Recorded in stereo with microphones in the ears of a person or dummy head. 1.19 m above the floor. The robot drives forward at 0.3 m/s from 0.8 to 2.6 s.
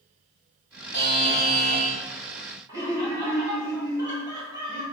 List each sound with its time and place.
0.9 s a buzzer: 25° left (ahead or behind), 1.0 m; by 2.0 s 20° left (ahead or behind), 1.1 m
2.7 s laughter: 20° right (ahead or behind), 1.3 m